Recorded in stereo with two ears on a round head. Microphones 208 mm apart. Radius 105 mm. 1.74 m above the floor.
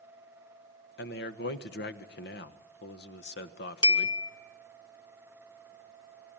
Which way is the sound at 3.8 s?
20° left (ahead or behind).